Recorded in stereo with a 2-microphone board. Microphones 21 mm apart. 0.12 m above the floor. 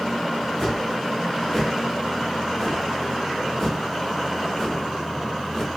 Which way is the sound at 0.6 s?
20° left (ahead or behind).